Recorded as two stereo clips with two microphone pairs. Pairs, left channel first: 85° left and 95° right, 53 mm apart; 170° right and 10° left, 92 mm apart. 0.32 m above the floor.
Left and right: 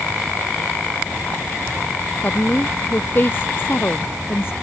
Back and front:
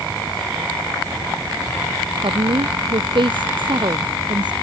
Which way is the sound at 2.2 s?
35° left.